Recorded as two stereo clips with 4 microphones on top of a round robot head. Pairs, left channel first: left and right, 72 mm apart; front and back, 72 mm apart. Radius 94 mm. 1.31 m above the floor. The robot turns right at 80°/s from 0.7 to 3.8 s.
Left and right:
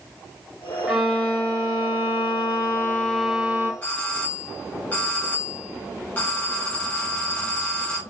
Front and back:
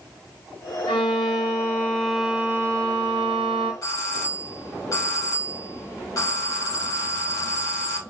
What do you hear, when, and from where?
0.9 s a violin: 10° right, 0.9 m; by 3.7 s 145° right, 0.9 m
3.8 s a doorbell: 30° left, 2.5 m